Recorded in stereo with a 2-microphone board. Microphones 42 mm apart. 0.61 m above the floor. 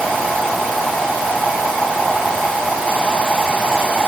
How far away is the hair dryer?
I don't hear a hair dryer.